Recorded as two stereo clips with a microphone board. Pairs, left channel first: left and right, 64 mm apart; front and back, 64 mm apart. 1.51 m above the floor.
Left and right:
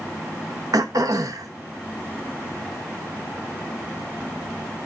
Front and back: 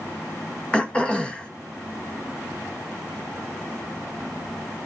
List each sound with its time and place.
0.7 s throat clearing: 75° right, 1.4 m